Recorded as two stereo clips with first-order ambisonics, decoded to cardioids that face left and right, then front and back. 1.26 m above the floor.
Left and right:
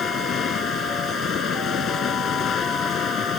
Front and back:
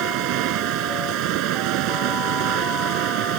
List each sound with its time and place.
0.0 s running water: 150° left